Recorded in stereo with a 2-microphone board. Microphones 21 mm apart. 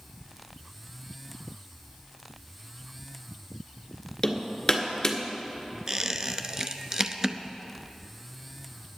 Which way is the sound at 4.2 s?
25° left (ahead or behind).